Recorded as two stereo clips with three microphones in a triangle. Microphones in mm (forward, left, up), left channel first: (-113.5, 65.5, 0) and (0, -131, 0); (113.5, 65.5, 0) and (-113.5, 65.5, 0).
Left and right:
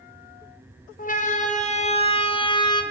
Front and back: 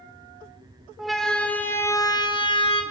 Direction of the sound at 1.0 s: 90° left.